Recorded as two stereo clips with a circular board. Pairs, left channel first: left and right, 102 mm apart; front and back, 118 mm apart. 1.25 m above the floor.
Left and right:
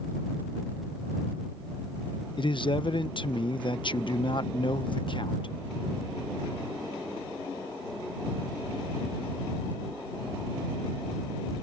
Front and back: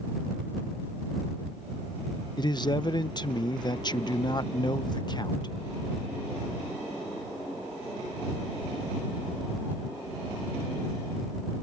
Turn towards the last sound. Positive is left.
turn(degrees=50)